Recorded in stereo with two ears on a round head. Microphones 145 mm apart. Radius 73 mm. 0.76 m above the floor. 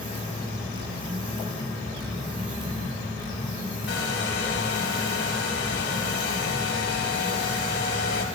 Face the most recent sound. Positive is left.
turn(degrees=65)  # may be behind; listen again after turning